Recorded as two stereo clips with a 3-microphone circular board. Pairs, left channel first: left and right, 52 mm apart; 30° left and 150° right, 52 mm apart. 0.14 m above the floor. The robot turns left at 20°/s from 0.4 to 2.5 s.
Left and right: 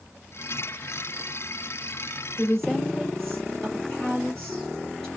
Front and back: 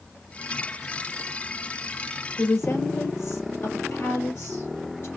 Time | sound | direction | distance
2.4 | a woman speaking | 10° left | 3 m